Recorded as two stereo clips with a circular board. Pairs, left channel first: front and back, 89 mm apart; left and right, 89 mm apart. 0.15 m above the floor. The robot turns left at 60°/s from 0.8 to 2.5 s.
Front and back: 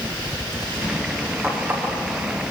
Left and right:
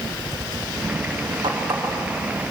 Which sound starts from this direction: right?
A running tap, at 1.4 s.